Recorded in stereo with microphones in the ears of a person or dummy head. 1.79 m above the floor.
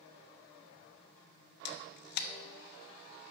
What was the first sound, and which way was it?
A camera shutter, 60° left (ahead or behind).